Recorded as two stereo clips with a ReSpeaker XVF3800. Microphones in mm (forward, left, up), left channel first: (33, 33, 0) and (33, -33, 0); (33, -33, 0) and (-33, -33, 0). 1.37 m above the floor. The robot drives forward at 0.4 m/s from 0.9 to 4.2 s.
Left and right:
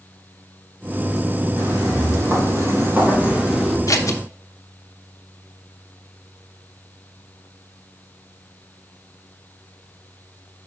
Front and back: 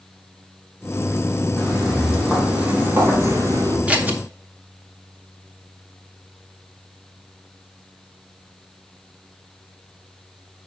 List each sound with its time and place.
1.6 s footsteps: 85° right, 3.5 m; by 3.8 s straight behind, 2.5 m
3.9 s scissors: 110° left, 0.8 m; by 4.2 s 120° left, 0.8 m